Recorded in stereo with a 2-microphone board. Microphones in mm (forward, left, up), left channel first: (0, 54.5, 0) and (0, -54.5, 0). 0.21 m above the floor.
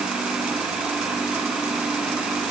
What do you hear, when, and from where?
Only background noise.